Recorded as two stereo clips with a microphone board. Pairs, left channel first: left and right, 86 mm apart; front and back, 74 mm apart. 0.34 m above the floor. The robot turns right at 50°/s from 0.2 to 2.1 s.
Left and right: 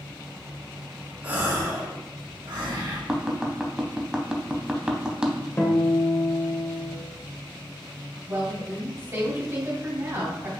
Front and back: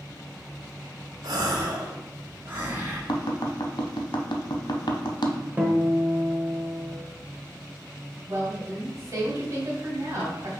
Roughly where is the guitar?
Behind left.